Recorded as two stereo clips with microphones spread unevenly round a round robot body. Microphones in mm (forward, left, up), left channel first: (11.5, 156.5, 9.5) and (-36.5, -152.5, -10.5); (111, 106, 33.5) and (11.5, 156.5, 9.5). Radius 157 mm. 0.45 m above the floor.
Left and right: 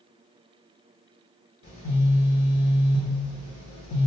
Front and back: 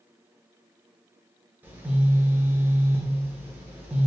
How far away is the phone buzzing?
About 1.0 m.